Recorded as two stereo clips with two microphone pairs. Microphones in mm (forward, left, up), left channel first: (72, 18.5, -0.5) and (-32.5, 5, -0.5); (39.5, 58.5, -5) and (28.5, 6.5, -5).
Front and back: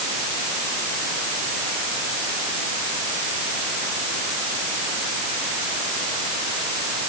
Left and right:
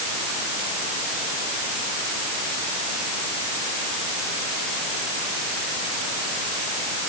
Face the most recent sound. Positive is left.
No sound to turn to.